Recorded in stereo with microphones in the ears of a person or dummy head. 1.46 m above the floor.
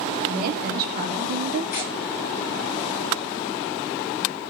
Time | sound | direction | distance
0.3 | a woman speaking | 45° right (ahead or behind) | 3.5 m
1.7 | tearing paper | 50° left (ahead or behind) | 4.5 m